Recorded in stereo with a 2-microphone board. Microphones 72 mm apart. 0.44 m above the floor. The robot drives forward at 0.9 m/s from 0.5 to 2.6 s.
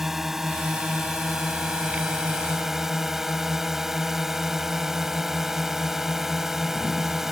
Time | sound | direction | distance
0.0 | a drone | 5° right (ahead or behind) | ?